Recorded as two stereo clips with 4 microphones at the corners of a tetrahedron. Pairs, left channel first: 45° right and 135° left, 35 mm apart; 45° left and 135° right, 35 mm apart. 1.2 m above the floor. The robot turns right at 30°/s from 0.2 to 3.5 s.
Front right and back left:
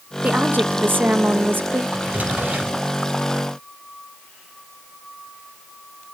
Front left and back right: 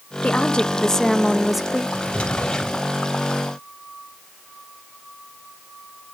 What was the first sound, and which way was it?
A woman speaking, 100° left.